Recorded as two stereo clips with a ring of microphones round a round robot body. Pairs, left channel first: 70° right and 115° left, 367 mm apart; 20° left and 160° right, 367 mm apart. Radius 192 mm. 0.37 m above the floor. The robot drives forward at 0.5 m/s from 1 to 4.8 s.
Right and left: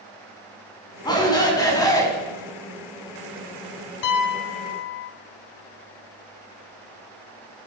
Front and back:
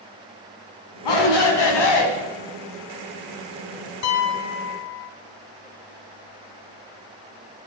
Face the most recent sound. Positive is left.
turn(degrees=-35)